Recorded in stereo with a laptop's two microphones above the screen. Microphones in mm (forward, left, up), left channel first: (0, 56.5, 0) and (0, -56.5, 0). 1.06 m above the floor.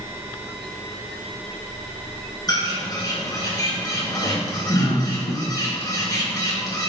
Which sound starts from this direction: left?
A bird, at 2.5 s.